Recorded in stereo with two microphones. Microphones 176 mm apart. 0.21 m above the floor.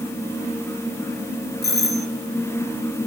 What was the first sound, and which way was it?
A doorbell, 65° left (ahead or behind).